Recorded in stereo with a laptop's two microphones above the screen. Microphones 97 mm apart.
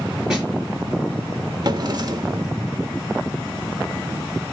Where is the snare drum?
5° right (ahead or behind), 4 m.